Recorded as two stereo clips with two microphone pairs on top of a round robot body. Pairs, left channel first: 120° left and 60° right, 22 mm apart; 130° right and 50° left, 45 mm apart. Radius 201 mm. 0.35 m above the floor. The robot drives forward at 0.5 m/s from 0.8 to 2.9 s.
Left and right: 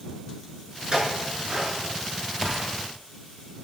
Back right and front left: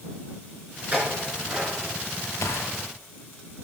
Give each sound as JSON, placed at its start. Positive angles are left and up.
{"t": 0.9, "sound": "a clink", "azimuth_deg": -15, "distance_m": 6.0}
{"t": 2.4, "sound": "a gunshot", "azimuth_deg": -130, "distance_m": 1.2}